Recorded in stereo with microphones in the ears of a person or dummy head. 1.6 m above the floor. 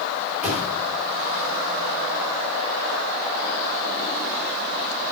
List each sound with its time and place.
0.4 s a thud: 10° right (ahead or behind), 3.5 m